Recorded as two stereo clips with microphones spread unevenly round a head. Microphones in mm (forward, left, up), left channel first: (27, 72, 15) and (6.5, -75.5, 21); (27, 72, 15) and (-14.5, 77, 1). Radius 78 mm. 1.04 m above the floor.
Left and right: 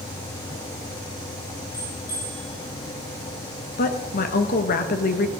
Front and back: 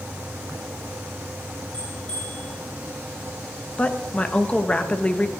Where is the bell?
55° left, 6 m.